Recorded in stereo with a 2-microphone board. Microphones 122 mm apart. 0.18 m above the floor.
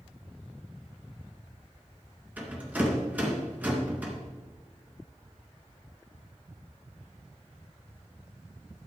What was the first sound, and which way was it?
A rattle, 15° right (ahead or behind).